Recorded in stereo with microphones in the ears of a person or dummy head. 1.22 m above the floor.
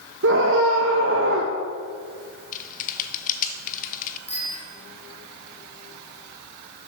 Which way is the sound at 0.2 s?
60° right (ahead or behind).